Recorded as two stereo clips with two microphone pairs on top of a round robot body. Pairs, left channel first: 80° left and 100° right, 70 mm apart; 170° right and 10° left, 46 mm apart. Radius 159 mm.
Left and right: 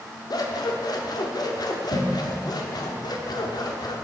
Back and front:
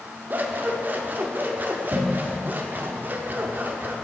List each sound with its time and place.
0.3 s scissors: 50° left, 1.1 m